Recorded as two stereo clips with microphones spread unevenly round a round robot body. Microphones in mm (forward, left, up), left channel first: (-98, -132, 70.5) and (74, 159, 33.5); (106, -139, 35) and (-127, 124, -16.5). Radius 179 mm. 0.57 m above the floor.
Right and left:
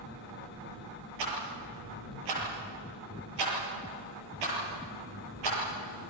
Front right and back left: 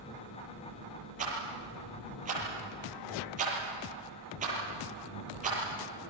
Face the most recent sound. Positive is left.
turn(degrees=60)